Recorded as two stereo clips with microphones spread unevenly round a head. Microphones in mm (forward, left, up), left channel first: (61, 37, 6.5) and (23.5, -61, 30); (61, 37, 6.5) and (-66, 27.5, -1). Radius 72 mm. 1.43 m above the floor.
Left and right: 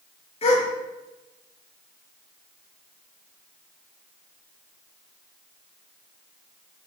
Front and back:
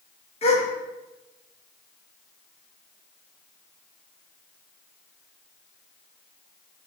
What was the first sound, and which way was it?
A gasp, 40° left.